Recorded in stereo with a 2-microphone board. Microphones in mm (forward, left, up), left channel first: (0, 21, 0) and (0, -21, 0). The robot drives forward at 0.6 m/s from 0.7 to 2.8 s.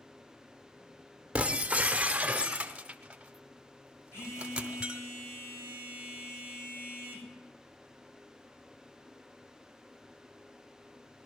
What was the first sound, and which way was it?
Breaking glass, 30° right (ahead or behind).